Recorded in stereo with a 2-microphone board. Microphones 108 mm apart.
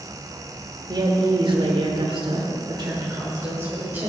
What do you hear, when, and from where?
0.9 s a woman speaking: 40° right (ahead or behind), 1.6 m; by 4.1 s 20° right (ahead or behind), 1.9 m